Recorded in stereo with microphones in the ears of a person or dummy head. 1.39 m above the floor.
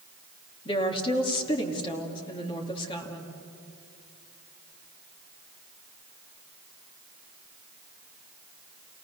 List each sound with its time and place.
0.7 s a woman speaking: 30° left (ahead or behind), 2.5 m